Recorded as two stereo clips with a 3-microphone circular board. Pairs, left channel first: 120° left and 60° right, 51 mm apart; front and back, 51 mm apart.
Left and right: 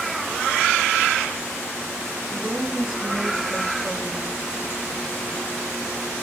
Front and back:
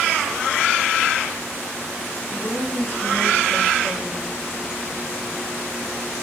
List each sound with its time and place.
2.3 s a woman speaking: 15° left, 3.5 m